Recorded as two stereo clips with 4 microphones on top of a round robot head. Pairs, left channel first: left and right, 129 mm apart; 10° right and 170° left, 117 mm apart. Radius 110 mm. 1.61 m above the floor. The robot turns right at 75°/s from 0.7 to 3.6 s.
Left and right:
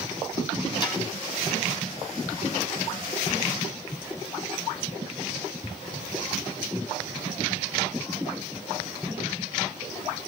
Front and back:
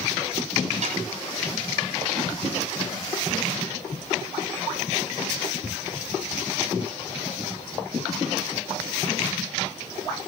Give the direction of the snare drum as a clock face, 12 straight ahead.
7 o'clock.